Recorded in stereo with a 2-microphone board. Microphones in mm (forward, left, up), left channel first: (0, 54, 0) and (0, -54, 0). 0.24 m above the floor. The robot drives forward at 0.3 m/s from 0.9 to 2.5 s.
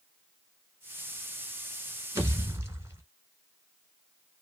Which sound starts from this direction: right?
A pop, at 2.1 s.